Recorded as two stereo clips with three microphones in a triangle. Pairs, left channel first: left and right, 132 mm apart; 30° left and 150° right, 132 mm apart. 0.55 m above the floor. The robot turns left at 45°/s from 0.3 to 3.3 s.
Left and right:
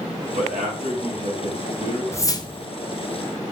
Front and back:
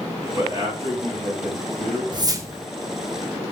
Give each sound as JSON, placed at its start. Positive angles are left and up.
{"t": 0.3, "sound": "a man speaking", "azimuth_deg": -85, "distance_m": 4.0}
{"t": 2.1, "sound": "a whoosh", "azimuth_deg": 160, "distance_m": 0.7}